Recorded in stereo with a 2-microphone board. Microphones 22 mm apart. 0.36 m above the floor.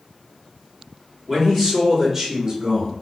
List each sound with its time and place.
1.3 s a man speaking: 5° left (ahead or behind), 1.4 m; by 2.9 s 20° right (ahead or behind), 1.3 m